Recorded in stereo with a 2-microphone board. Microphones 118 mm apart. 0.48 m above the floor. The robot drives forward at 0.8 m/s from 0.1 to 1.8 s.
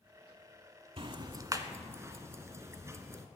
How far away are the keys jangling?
No keys jangling in this recording.